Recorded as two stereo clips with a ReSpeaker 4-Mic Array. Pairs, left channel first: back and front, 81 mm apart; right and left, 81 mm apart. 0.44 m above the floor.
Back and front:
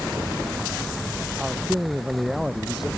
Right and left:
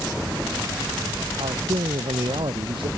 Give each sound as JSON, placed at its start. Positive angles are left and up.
{"t": 1.4, "sound": "a man speaking", "azimuth_deg": 85}